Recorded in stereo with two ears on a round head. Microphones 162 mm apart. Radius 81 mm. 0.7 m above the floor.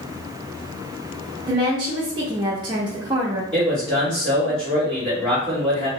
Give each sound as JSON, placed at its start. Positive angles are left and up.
{"t": 1.5, "sound": "a woman speaking", "side_deg": -25, "distance_m": 0.5}
{"t": 3.5, "sound": "a man speaking", "side_deg": 5, "distance_m": 1.4}